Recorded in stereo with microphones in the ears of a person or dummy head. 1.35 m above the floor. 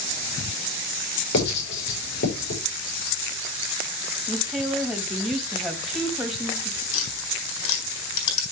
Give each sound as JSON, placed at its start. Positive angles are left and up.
{"t": 1.3, "sound": "writing", "side_deg": 60, "distance_m": 5.5}
{"t": 4.3, "sound": "a woman speaking", "side_deg": 0, "distance_m": 2.0}
{"t": 6.9, "sound": "tapping", "side_deg": 70, "distance_m": 4.0}